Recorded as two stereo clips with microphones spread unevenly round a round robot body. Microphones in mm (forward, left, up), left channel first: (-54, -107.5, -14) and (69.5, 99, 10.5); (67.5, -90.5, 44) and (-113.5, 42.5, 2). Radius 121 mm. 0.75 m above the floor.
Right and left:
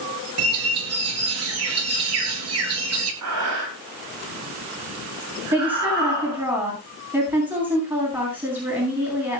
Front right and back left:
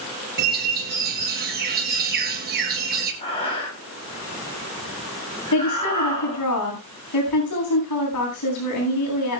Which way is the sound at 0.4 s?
90° left.